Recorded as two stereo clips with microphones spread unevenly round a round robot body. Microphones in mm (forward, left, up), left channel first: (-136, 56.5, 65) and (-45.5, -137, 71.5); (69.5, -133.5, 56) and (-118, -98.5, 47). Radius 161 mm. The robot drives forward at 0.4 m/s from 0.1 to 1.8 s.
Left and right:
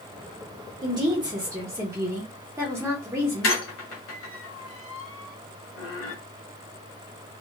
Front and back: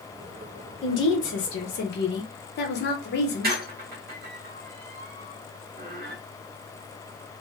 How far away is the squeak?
About 0.8 m.